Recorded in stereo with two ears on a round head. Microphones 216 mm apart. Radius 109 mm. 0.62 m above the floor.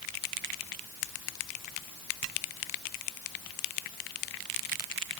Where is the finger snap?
No finger snap in this recording.